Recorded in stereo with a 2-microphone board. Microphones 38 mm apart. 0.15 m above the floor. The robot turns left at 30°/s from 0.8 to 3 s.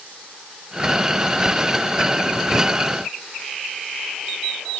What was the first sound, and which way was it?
Only background noise.